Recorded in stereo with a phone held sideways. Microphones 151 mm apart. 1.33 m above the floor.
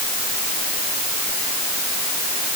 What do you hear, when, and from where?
Only background noise.